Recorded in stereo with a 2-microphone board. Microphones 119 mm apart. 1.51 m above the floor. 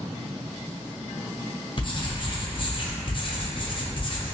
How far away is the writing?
About 0.5 m.